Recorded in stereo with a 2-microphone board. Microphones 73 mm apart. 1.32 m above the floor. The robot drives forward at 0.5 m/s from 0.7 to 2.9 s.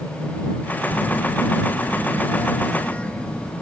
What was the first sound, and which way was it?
A phone buzzing, 45° left (ahead or behind).